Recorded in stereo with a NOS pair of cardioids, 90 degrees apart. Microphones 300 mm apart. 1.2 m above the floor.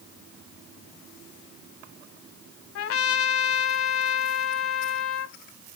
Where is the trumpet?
50° left, 0.6 m.